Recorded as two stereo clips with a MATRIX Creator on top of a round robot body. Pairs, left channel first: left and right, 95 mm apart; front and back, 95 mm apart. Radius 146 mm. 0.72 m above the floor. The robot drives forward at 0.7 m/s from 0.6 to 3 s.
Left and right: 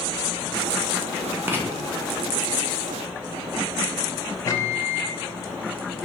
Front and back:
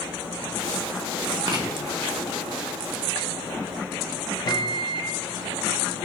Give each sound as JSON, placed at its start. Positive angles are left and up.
{"t": 1.5, "sound": "writing", "azimuth_deg": -150, "distance_m": 1.1}
{"t": 4.5, "sound": "a microwave", "azimuth_deg": 40, "distance_m": 0.6}